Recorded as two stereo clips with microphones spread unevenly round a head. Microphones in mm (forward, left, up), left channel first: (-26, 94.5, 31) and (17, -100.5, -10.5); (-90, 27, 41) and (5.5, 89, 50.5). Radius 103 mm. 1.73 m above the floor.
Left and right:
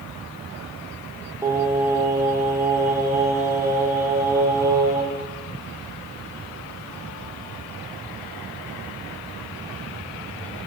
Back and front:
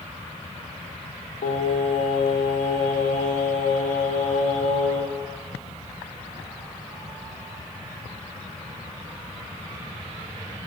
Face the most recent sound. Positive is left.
turn(degrees=-160)